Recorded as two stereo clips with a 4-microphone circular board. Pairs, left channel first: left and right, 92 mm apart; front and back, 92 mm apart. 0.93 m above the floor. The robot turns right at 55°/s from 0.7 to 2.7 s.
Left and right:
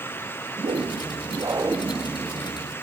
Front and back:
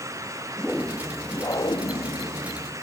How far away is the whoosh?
About 1.7 m.